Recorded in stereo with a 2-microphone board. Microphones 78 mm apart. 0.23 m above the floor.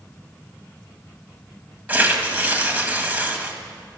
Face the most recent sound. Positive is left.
turn(degrees=-20)  # may be behind; listen again after turning